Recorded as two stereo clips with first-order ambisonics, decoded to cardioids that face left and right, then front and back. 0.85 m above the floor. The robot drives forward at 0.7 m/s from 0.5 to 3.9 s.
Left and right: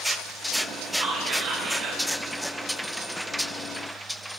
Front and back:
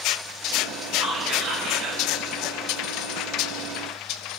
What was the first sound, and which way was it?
Whispering, 140° right.